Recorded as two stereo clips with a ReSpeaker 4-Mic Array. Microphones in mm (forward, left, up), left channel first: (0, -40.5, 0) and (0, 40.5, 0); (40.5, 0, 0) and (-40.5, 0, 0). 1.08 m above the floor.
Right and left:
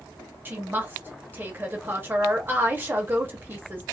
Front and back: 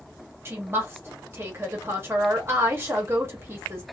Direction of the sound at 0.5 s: 140° left.